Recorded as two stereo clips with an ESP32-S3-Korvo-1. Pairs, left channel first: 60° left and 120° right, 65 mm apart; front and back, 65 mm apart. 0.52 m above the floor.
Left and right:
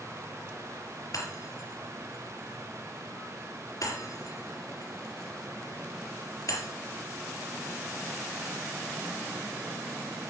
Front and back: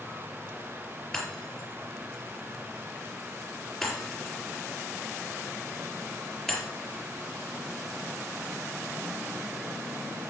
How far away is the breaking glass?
About 4.5 m.